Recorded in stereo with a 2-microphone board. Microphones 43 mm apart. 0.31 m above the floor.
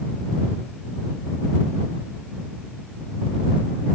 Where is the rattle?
No rattle in this recording.